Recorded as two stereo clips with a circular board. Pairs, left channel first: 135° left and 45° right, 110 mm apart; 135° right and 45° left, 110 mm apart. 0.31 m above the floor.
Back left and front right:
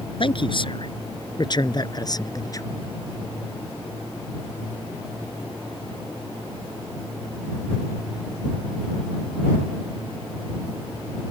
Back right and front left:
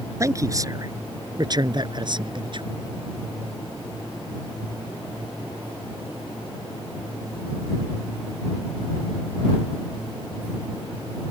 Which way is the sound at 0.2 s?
105° left.